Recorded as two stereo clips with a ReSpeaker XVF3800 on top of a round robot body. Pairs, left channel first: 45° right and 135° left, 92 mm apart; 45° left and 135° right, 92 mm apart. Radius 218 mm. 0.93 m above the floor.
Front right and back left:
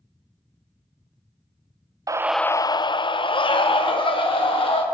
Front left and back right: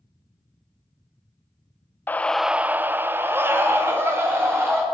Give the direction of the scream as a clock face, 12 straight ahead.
8 o'clock.